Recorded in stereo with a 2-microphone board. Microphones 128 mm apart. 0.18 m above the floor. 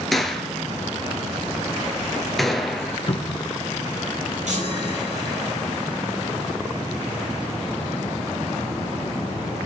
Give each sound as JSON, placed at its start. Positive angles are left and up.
{"t": 0.1, "sound": "a gunshot", "side_deg": 0, "distance_m": 1.5}
{"t": 3.1, "sound": "a cupboard door", "side_deg": 40, "distance_m": 1.6}
{"t": 4.5, "sound": "a chime", "side_deg": -70, "distance_m": 6.0}